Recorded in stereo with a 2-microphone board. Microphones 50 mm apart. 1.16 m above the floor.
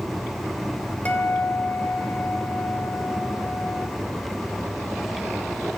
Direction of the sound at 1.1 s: 35° left (ahead or behind).